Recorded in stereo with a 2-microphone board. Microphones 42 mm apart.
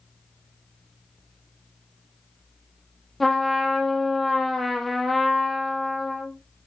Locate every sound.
3.2 s a trumpet: 5° left (ahead or behind), 1.8 m